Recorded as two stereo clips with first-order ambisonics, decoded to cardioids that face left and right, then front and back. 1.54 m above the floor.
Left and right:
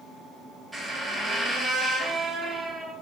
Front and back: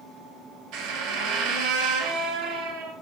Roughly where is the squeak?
Behind.